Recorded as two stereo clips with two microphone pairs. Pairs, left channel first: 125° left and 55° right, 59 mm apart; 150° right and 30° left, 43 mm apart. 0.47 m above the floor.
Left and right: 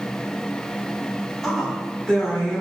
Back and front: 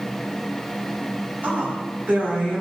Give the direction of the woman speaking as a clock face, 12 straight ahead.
11 o'clock.